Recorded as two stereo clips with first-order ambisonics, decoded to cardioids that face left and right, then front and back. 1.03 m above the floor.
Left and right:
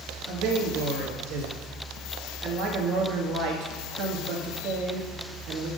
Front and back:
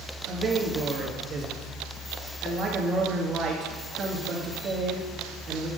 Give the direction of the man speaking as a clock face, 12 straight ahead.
4 o'clock.